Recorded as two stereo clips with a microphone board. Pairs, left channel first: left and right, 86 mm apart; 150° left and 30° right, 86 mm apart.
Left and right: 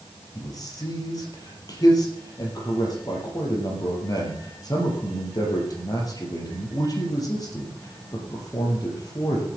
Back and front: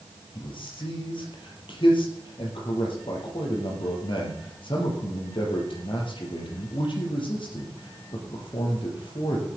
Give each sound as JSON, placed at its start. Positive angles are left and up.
{"t": 0.3, "sound": "a man speaking", "azimuth_deg": 135, "distance_m": 5.0}